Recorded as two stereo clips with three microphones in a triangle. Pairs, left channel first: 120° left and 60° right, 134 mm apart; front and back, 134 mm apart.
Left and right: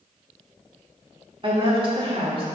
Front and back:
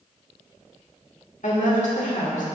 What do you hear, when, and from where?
1.4 s a woman speaking: 15° right, 1.9 m